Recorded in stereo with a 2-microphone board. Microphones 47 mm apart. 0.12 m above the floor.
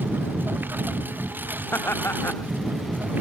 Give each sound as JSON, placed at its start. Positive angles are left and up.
{"t": 0.0, "sound": "a lawn mower", "side_deg": -45}
{"t": 1.7, "sound": "laughter", "side_deg": 55}